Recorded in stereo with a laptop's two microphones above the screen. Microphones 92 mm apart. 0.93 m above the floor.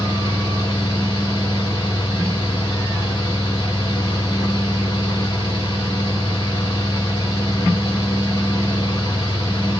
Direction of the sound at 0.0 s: 45° left (ahead or behind).